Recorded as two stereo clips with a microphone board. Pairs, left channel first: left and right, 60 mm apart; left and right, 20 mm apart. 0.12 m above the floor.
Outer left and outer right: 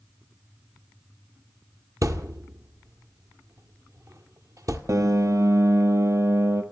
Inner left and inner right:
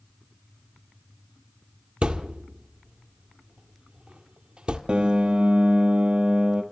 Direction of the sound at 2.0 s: 65° right (ahead or behind).